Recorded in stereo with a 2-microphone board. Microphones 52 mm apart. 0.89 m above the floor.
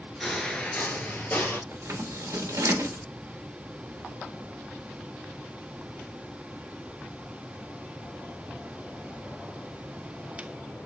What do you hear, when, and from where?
0.2 s footsteps: 10° left (ahead or behind), 0.8 m; by 1.6 s 40° left (ahead or behind), 1.3 m
1.7 s scissors: 85° right, 1.0 m